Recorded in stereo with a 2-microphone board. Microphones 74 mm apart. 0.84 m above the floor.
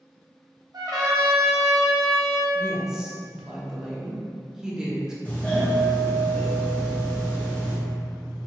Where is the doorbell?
20° left (ahead or behind), 0.7 m.